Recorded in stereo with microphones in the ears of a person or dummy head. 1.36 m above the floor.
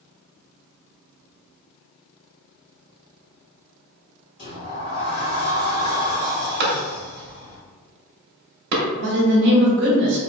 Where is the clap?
50° right (ahead or behind), 0.9 m.